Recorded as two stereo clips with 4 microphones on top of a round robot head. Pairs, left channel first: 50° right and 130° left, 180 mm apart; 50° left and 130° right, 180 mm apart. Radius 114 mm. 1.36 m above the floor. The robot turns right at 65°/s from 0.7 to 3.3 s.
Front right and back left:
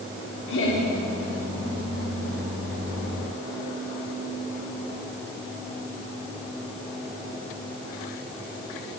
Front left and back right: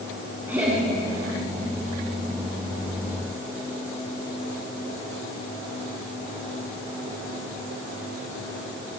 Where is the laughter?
55° right, 4.5 m; by 0.8 s 45° right, 4.5 m.